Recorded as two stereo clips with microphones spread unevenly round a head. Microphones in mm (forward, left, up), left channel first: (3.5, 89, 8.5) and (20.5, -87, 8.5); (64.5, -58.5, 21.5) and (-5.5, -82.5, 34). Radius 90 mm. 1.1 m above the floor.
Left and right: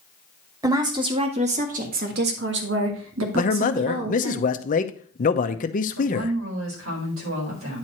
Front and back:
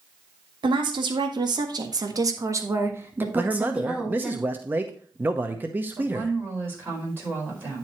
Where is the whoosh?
No whoosh in this recording.